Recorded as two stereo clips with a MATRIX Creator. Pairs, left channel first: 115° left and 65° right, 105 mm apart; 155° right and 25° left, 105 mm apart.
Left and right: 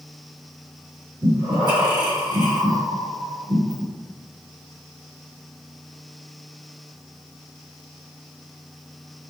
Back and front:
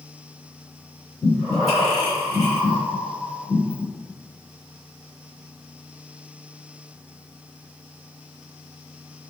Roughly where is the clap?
No clap in this recording.